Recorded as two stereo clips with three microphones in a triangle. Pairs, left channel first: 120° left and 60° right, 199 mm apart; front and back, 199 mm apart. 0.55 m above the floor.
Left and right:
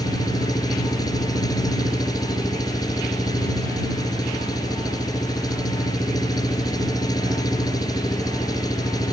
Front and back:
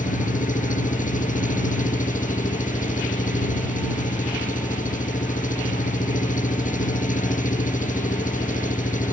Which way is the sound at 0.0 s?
50° left.